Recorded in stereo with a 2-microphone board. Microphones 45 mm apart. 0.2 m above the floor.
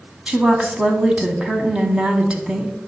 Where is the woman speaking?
25° right (ahead or behind), 1.2 m.